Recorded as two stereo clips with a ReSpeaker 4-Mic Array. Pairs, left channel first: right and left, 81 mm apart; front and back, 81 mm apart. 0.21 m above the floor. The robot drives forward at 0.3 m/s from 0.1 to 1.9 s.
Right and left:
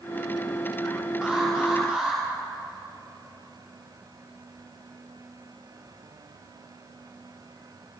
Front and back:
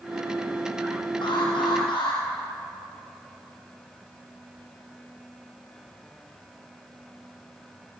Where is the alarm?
10° left, 9.5 m.